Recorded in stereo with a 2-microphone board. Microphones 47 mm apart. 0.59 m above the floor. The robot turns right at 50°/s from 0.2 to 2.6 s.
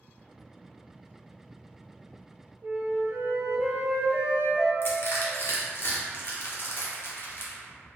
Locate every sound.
2.6 s a flute: 55° right (ahead or behind), 0.8 m
4.8 s crushing: 50° left (ahead or behind), 0.7 m